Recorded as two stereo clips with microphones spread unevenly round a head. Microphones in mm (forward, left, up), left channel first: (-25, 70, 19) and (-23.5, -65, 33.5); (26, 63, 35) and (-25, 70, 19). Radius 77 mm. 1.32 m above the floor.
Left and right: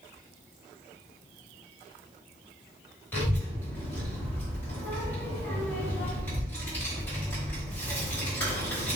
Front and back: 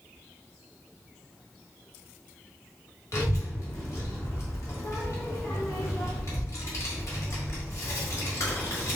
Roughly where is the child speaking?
Ahead.